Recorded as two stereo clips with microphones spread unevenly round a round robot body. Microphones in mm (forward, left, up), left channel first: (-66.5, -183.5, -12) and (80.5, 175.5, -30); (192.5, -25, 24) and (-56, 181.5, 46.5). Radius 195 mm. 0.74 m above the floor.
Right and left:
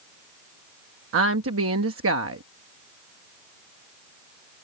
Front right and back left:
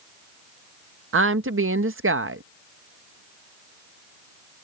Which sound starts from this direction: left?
A woman speaking, at 1.1 s.